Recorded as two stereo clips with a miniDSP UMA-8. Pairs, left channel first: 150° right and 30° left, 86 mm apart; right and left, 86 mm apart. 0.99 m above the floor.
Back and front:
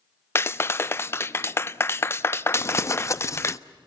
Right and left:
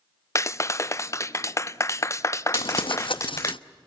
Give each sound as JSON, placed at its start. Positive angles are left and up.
{"t": 0.3, "sound": "a clap", "azimuth_deg": -115, "distance_m": 0.5}
{"t": 2.5, "sound": "crumpling", "azimuth_deg": -95, "distance_m": 0.6}